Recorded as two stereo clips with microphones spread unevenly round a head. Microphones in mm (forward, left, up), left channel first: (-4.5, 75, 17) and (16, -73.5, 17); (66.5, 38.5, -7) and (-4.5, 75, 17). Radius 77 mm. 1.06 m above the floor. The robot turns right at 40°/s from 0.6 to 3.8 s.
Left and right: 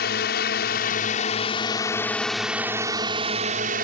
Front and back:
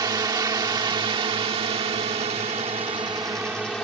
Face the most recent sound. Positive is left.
turn(degrees=-115)